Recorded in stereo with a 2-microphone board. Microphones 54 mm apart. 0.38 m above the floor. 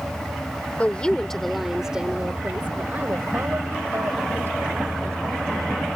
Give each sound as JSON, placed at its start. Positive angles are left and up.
{"t": 0.8, "sound": "a woman speaking", "side_deg": 30}